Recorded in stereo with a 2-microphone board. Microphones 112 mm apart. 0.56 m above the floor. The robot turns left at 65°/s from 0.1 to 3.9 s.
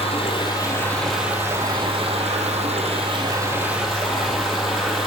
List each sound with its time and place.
0.0 s running water: 65° left, 1.5 m; by 5.1 s straight behind, 1.5 m